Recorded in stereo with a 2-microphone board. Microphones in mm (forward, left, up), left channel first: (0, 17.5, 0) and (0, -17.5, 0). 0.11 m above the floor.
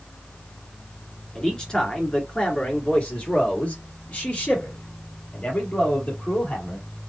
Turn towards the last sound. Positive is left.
turn(degrees=50)  # may be behind; listen again after turning